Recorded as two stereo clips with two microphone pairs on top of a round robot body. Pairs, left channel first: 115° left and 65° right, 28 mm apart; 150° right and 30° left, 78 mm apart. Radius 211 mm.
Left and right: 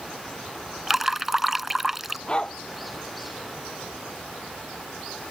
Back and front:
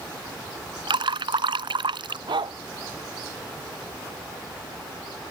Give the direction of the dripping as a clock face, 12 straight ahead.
12 o'clock.